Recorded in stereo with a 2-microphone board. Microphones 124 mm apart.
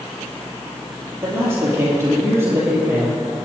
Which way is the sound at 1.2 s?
20° right (ahead or behind).